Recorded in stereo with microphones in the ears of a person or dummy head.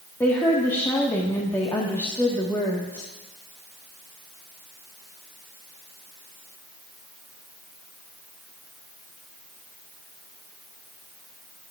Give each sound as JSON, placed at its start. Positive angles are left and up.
{"t": 0.2, "sound": "a woman speaking", "side_deg": 10, "distance_m": 1.6}